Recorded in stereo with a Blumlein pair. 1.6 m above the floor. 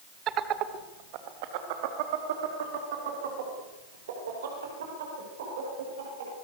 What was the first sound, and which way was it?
Laughter, 30° right.